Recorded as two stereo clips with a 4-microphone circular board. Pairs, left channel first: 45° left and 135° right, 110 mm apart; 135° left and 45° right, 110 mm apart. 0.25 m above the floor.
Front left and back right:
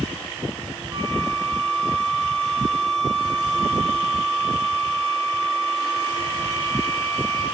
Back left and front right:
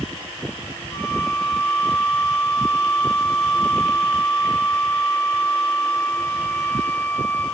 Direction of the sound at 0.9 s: 175° left.